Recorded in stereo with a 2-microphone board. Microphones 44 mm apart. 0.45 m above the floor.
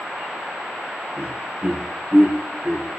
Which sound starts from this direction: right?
Laughter, at 1.2 s.